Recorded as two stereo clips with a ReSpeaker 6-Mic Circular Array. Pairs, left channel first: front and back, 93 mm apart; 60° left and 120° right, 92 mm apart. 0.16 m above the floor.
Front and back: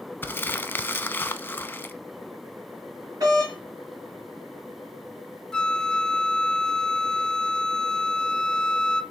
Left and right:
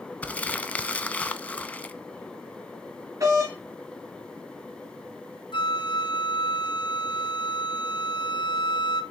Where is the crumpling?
15° left, 0.5 m.